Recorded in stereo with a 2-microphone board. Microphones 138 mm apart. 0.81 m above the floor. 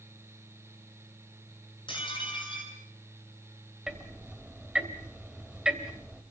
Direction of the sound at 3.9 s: 5° right (ahead or behind).